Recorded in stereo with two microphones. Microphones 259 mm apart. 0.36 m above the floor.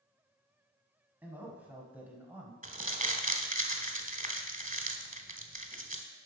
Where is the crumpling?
30° right (ahead or behind), 0.8 m.